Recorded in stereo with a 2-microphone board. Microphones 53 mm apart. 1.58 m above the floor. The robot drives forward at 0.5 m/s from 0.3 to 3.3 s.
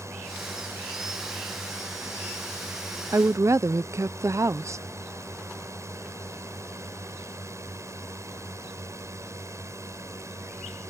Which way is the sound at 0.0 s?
80° right.